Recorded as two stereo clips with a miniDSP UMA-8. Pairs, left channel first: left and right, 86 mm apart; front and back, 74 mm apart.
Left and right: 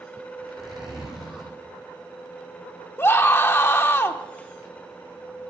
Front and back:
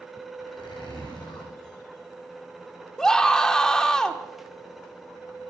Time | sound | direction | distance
0.4 | a zipper | 5° right | 7 m
3.0 | a scream | 70° left | 0.8 m